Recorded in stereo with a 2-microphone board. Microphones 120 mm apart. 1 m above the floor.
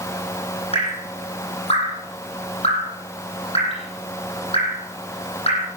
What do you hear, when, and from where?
0.7 s dripping: 60° left (ahead or behind), 10 m